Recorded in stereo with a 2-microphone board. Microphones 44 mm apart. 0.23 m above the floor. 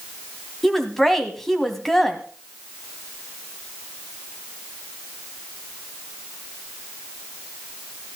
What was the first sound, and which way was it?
A woman speaking, 10° left (ahead or behind).